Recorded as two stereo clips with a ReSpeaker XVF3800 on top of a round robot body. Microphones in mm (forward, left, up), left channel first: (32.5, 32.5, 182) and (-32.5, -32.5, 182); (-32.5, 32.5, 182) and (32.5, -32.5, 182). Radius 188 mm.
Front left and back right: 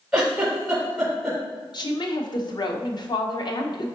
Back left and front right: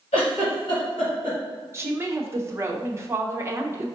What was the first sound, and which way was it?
A giggle, 140° left.